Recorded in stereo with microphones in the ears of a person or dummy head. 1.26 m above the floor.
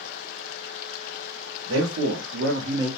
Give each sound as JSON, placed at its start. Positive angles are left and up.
{"t": 1.7, "sound": "a man speaking", "side_deg": -80, "distance_m": 0.9}